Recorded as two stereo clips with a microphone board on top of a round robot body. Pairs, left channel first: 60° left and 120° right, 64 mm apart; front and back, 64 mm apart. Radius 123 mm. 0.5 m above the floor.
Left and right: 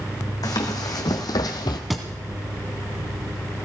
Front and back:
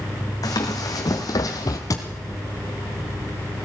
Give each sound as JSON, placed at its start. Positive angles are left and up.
{"t": 0.4, "sound": "running footsteps", "azimuth_deg": 30, "distance_m": 2.0}
{"t": 1.9, "sound": "a thud", "azimuth_deg": -30, "distance_m": 1.5}